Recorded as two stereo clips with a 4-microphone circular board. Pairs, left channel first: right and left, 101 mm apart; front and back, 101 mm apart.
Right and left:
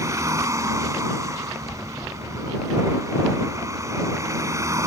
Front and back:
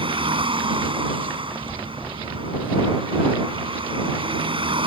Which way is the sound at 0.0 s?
150° left.